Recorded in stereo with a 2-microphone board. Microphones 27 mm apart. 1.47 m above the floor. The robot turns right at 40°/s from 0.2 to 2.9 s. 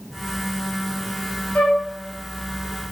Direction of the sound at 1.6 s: 60° left (ahead or behind).